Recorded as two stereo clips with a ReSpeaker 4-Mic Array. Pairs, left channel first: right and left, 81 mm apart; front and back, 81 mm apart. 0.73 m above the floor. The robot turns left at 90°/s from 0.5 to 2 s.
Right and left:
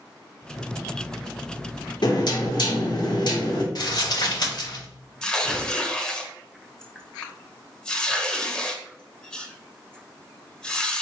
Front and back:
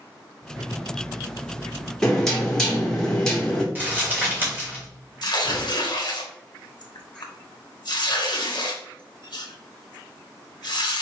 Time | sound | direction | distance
2.0 | knocking | 85° right | 1.6 m
3.8 | crumpling | 115° right | 2.5 m
5.2 | tearing paper | 10° right | 1.1 m